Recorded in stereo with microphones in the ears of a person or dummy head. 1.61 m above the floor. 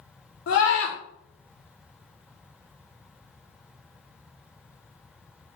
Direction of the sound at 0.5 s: 65° left (ahead or behind).